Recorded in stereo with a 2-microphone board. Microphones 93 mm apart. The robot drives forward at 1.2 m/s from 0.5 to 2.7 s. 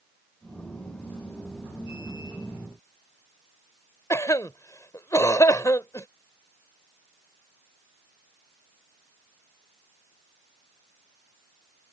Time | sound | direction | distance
4.1 | a cough | 35° left (ahead or behind) | ?